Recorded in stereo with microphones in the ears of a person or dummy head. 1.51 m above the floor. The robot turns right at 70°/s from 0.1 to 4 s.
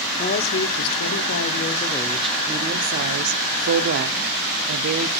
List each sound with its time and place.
0.1 s a woman speaking: 35° left, 0.7 m; by 5.2 s 55° right, 0.7 m